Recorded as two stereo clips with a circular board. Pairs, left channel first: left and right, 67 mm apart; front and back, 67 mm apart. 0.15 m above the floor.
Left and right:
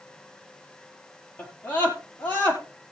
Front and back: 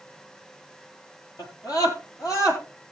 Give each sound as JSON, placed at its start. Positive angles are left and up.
{"t": 1.4, "sound": "a scream", "azimuth_deg": 25, "distance_m": 3.5}